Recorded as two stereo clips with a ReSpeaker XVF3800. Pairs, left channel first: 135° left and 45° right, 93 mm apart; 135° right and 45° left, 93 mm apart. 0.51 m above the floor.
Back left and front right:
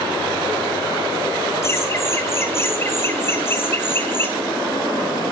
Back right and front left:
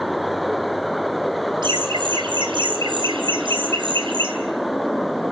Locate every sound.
1.6 s laughter: 75° left, 3.5 m; by 4.3 s 70° left, 5 m